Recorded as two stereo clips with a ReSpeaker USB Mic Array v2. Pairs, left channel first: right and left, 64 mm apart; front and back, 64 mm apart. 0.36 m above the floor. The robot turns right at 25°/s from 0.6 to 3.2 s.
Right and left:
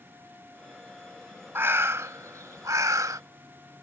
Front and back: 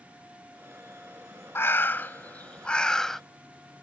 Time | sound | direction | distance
1.6 | a bird | 45° left | ?